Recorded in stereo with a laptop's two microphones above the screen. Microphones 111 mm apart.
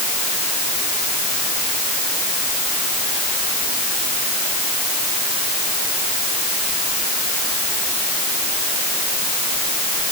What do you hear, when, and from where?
Only background noise.